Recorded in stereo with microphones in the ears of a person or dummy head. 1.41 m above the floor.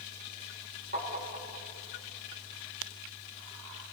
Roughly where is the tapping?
Right.